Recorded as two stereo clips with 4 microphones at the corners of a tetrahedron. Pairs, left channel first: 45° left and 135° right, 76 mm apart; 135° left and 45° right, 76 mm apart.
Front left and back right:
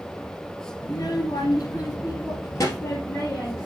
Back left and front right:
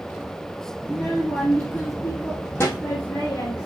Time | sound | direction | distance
0.8 | a child speaking | 50° left | 1.7 m